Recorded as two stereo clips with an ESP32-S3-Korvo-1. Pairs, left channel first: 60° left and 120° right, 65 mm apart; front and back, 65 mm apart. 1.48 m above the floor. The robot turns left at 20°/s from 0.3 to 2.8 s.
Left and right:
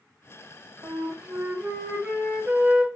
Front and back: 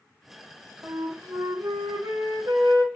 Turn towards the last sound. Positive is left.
turn(degrees=165)